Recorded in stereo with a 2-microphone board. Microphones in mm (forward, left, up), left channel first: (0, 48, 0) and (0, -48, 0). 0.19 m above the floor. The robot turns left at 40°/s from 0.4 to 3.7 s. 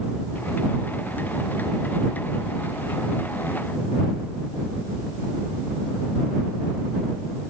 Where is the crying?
I don't hear crying.